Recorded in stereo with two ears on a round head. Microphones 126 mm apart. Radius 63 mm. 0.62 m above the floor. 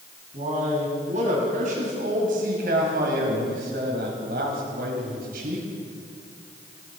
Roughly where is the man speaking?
Right.